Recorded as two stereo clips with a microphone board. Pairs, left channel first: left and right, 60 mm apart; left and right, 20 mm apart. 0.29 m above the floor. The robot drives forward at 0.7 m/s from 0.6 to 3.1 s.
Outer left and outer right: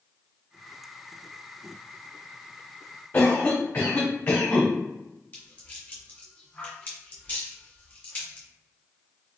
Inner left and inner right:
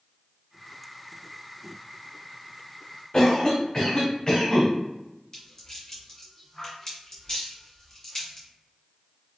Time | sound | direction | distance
3.1 | a cough | 35° left (ahead or behind) | 1.1 m
5.3 | a rattle | 25° left (ahead or behind) | 1.7 m